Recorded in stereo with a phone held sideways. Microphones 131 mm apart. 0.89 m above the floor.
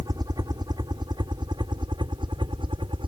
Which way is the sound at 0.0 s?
30° right (ahead or behind).